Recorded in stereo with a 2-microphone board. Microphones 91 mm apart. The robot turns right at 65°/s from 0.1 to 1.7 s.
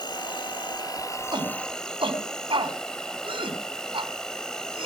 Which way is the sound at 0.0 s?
70° left.